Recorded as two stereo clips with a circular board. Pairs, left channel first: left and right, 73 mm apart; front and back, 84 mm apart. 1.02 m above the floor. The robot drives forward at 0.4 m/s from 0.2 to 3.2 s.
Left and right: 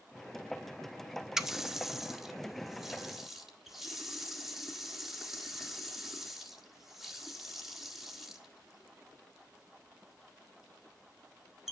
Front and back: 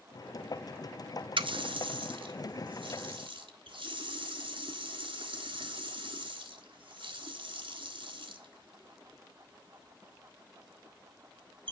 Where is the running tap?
175° right, 0.6 m; by 11.7 s straight behind, 1.3 m.